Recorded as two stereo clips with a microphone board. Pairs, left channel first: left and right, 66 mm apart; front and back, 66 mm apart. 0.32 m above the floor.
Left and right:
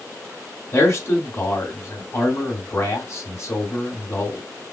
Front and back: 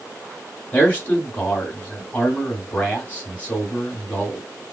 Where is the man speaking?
60° left, 1.9 m.